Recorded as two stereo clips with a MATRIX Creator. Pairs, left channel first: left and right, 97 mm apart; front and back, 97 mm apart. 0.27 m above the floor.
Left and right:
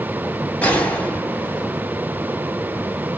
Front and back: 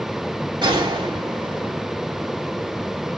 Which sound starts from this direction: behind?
A gunshot, at 0.6 s.